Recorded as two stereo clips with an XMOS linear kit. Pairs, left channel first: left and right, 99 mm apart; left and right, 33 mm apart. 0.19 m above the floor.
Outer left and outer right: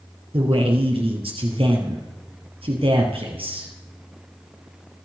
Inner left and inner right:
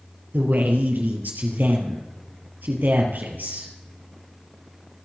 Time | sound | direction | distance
0.3 | a man speaking | 70° right (ahead or behind) | 3.5 m